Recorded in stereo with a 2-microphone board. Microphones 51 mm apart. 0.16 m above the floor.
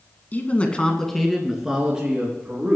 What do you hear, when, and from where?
0.3 s a man speaking: 35° left (ahead or behind), 1.5 m; by 2.8 s 25° right (ahead or behind), 3.5 m